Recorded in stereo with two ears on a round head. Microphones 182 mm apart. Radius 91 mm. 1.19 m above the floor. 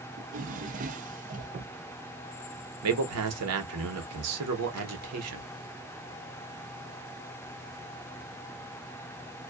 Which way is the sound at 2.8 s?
90° right.